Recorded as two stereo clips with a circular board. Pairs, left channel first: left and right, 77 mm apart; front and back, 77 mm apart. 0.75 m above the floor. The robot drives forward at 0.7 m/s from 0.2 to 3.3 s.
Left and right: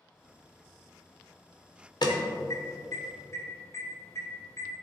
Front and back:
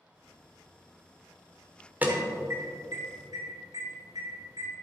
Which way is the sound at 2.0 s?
115° left.